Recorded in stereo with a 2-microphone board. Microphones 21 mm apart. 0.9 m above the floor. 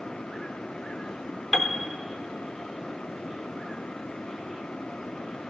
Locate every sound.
1.5 s a piano: 20° left (ahead or behind), 0.5 m